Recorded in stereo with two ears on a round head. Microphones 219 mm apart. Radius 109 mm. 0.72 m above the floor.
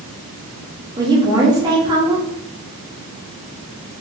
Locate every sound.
1.0 s a woman speaking: 15° right (ahead or behind), 0.8 m